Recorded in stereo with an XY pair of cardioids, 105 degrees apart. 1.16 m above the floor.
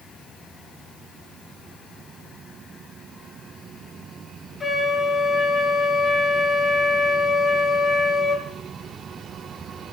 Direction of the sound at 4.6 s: 30° left.